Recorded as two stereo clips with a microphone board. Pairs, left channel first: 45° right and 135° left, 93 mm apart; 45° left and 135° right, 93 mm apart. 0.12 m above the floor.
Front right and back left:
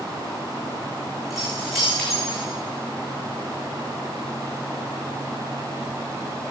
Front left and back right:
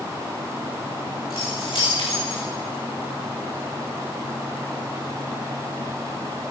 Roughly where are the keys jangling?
Ahead left.